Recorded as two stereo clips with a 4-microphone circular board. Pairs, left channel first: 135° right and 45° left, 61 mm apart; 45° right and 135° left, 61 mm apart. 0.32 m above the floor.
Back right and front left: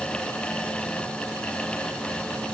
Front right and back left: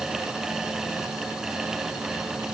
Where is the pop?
No pop in this recording.